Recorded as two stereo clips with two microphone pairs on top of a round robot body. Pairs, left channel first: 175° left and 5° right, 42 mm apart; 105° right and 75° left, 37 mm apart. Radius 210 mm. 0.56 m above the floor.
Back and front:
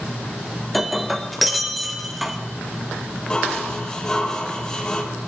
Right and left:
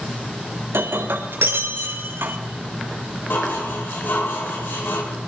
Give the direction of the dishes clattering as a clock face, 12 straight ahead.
4 o'clock.